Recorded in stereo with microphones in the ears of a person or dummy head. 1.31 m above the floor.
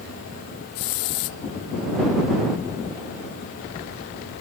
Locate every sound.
0.8 s a hiss: 70° left (ahead or behind)